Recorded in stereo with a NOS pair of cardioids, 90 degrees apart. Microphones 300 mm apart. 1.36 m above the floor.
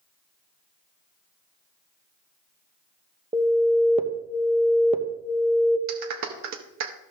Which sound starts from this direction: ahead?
An alarm, at 3.3 s.